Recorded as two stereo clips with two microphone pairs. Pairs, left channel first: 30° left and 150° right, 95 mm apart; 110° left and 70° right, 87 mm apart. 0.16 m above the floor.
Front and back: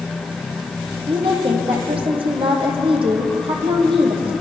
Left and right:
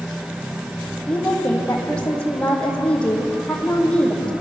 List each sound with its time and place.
1.1 s a woman speaking: 170° right, 6 m